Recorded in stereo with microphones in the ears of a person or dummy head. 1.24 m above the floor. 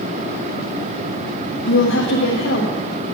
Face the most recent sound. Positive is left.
turn(degrees=65)  # may be behind; listen again after turning